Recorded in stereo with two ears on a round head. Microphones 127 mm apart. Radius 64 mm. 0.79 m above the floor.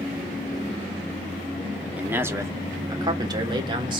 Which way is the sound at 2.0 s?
10° right (ahead or behind).